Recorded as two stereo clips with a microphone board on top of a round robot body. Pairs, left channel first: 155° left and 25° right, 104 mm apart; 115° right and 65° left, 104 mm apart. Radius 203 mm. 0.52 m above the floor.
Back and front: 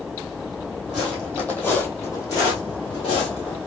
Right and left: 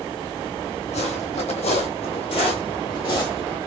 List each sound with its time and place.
0.9 s footsteps: 110° right, 1.6 m; by 3.6 s 175° right, 1.7 m